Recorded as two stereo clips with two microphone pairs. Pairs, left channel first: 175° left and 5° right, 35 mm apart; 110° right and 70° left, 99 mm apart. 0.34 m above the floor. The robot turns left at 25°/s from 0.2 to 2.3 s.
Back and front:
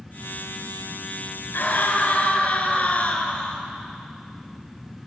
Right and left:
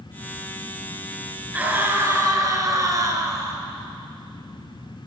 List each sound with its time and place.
1.5 s a scream: 150° left, 5 m; by 3.6 s 130° left, 5 m